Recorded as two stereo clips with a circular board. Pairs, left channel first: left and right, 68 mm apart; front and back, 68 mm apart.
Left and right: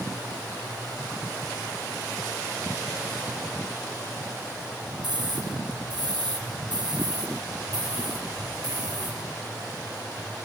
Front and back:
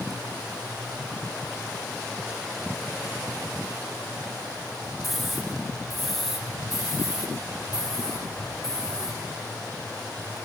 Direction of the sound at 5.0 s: 90° right.